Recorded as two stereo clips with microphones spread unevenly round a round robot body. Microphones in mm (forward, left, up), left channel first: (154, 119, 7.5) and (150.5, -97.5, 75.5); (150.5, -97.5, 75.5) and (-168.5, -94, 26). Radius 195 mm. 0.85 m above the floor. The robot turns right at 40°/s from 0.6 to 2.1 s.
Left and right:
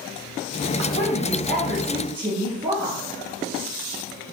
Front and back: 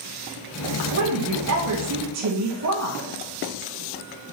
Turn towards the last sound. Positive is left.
turn(degrees=-175)